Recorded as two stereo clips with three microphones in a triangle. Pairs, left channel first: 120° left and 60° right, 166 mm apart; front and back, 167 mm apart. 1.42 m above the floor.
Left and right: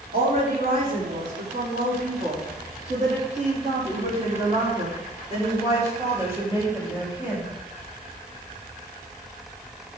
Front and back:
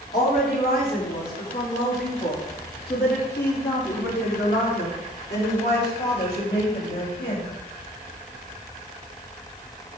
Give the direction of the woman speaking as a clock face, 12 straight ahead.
1 o'clock.